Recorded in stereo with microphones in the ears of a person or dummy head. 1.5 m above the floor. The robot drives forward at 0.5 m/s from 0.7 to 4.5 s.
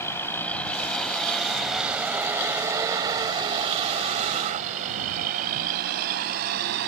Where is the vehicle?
15° left (ahead or behind); by 6.9 s 55° right (ahead or behind).